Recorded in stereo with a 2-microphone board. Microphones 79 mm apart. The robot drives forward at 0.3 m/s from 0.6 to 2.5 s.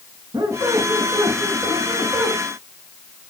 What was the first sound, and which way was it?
A squeak, 65° right (ahead or behind).